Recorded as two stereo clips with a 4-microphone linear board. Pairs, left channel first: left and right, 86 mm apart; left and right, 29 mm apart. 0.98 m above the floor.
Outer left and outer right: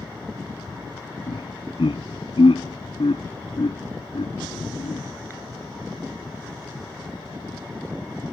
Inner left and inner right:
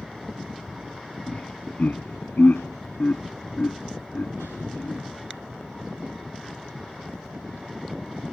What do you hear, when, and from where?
1.3 s laughter: 80° left; by 5.0 s 70° left (ahead or behind)